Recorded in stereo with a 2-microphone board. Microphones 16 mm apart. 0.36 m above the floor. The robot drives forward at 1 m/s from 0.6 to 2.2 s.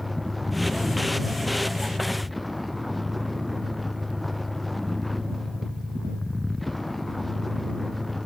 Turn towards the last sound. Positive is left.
turn(degrees=5)  # may be behind; listen again after turning